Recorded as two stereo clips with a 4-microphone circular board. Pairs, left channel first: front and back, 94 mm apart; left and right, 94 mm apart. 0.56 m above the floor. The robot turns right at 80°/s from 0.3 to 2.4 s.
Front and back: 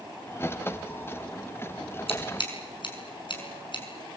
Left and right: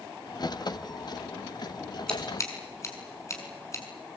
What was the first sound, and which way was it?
Scissors, 5° left.